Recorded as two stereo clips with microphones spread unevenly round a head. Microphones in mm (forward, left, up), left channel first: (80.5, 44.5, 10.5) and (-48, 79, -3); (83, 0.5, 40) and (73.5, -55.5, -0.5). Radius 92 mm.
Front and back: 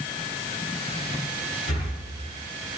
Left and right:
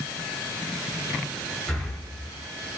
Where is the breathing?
5° right, 3 m.